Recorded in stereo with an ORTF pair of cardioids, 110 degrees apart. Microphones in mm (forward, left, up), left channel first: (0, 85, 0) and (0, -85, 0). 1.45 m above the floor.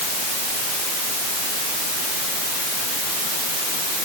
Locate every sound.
Only background noise.